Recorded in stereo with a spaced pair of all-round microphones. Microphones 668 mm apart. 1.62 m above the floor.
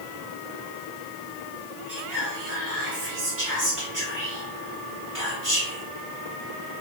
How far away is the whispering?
About 1.4 m.